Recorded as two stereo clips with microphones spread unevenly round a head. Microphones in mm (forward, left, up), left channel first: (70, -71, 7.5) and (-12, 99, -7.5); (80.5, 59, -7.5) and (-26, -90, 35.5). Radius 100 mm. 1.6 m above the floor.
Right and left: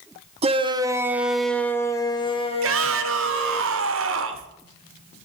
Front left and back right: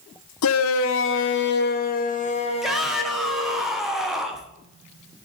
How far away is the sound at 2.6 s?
About 1.0 m.